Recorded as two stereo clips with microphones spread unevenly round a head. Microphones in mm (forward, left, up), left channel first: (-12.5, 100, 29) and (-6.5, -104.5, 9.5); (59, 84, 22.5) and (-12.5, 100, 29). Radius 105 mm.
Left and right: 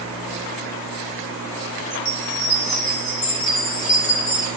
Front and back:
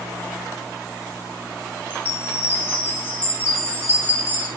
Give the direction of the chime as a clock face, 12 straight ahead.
8 o'clock.